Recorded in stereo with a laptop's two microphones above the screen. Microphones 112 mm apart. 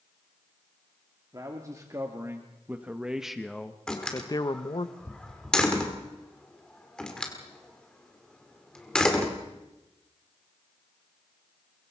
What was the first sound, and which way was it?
A man speaking, 30° right (ahead or behind).